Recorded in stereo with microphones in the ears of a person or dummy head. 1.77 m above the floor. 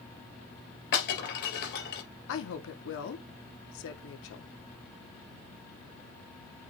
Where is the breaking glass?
55° left (ahead or behind), 3.5 m.